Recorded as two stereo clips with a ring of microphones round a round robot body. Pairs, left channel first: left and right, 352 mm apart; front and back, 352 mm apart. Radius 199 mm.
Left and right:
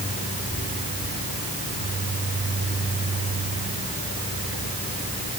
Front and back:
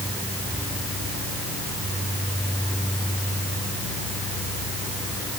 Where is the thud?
No thud in this recording.